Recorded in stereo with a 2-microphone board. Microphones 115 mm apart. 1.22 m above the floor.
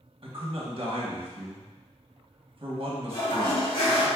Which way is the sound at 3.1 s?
45° left (ahead or behind).